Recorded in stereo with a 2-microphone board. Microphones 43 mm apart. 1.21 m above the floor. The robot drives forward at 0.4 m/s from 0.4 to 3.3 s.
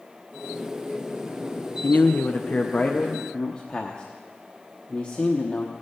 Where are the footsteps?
I don't hear footsteps.